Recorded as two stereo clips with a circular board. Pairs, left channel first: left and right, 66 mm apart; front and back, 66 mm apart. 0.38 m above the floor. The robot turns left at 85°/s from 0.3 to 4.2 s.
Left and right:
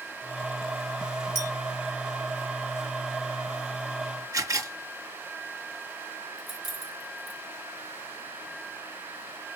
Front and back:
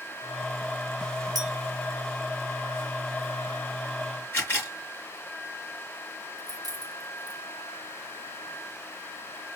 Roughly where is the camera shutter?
Ahead right.